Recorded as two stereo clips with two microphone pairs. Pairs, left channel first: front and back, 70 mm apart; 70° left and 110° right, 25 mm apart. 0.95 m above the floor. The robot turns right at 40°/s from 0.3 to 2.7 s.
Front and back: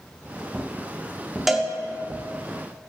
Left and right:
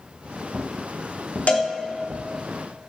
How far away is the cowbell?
About 1.4 m.